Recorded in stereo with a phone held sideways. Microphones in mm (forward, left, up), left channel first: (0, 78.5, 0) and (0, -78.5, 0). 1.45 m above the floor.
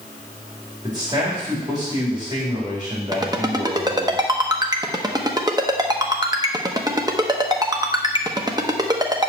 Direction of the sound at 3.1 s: 25° right (ahead or behind).